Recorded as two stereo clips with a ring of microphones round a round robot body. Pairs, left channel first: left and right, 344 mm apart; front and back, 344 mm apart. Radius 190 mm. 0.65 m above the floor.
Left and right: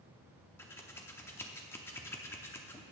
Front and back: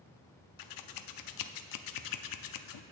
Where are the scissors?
10° left, 0.7 m.